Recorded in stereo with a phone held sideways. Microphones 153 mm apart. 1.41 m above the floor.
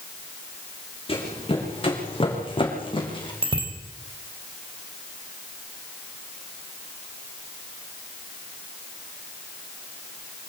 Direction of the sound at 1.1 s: 35° left (ahead or behind).